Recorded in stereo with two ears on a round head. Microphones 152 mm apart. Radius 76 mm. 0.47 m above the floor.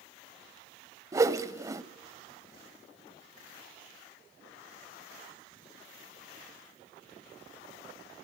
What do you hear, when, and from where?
1.1 s a whoosh: 20° right (ahead or behind), 0.8 m